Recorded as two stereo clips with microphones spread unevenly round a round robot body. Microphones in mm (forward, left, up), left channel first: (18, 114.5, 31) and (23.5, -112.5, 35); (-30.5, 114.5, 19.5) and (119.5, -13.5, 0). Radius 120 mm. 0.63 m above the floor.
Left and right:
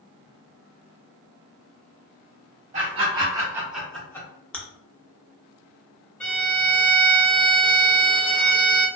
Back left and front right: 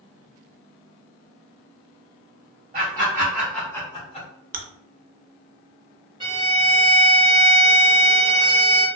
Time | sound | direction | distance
2.7 | laughter | 55° right | 1.2 m
4.5 | chewing | 5° left | 0.5 m
6.2 | a violin | 10° left | 1.4 m